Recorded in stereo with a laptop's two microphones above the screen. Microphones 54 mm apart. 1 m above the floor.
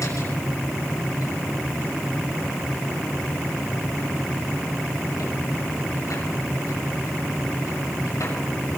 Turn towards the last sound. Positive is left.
turn(degrees=80)